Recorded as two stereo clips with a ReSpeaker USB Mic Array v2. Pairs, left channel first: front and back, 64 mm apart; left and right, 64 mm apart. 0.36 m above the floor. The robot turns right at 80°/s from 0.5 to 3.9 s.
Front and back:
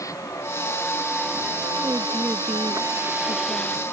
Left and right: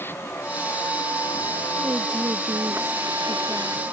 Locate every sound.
0.0 s a vehicle: 35° left; by 3.9 s 55° right
1.8 s a woman speaking: 135° right; by 3.8 s 25° left